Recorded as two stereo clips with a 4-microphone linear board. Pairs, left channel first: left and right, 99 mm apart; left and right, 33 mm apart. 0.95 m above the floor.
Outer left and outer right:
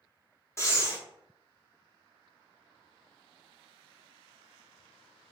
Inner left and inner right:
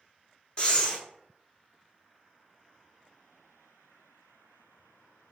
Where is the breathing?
25° left (ahead or behind), 0.6 m.